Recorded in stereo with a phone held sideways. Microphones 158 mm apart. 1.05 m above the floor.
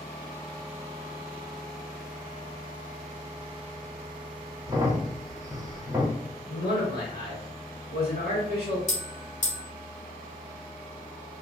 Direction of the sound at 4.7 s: 25° right (ahead or behind).